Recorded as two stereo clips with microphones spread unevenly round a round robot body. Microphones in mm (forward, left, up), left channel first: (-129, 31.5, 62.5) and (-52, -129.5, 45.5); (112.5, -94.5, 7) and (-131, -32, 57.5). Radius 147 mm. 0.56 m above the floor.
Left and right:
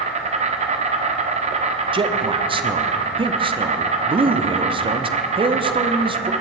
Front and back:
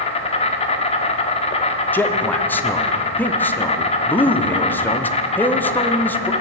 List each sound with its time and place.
0.0 s an insect: 55° right, 1.2 m
1.9 s a man speaking: 75° right, 0.8 m